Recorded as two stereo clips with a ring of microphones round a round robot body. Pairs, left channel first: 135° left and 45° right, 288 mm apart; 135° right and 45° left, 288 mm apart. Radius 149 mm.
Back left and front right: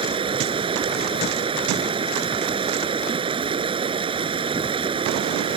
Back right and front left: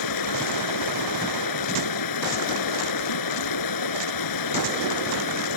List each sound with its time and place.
0.0 s running water: 120° right